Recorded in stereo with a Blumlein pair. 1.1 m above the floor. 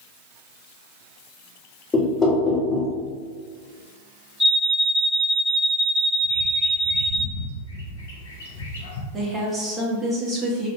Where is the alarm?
15° left, 1.7 m.